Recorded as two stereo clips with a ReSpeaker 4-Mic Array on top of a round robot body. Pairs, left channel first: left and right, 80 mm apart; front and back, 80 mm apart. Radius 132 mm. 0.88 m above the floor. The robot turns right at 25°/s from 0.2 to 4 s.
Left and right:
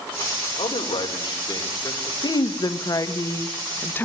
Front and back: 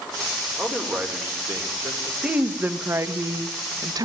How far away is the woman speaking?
About 1.4 m.